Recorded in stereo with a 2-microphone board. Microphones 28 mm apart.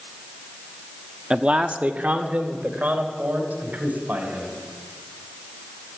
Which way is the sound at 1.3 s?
30° right (ahead or behind).